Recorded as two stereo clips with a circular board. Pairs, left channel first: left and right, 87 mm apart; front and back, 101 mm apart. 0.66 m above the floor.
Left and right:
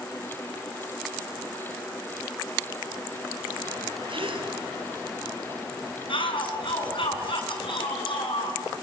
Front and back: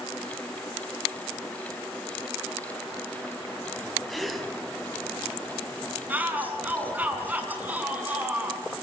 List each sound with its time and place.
4.1 s a gasp: 90° right, 3 m
6.1 s a shout: 105° left, 6.5 m